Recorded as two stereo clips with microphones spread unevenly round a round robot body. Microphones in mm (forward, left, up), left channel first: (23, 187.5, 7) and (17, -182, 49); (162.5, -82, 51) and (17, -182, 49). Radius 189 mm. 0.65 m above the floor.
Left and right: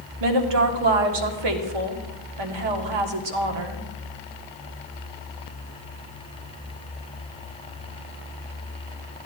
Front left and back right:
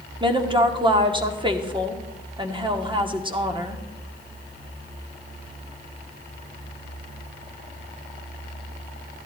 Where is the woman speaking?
85° right, 1.5 m.